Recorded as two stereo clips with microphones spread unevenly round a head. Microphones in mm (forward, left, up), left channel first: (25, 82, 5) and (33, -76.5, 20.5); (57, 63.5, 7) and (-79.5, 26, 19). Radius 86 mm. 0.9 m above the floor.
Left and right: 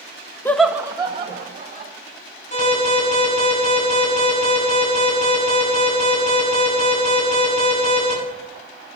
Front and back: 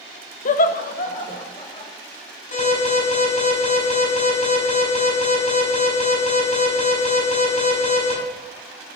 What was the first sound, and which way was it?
Laughter, 25° left.